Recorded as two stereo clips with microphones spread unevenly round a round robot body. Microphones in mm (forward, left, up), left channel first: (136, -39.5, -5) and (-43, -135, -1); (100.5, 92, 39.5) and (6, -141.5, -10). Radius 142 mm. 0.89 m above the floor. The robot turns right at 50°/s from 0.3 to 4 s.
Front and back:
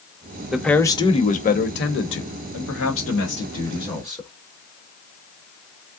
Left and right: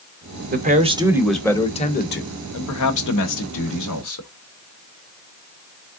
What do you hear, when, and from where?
0.5 s a man speaking: 65° right, 0.9 m; by 4.3 s 110° left, 0.9 m